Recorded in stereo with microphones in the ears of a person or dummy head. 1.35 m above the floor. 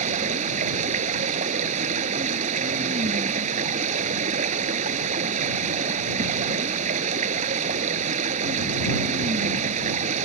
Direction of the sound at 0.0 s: 40° right (ahead or behind).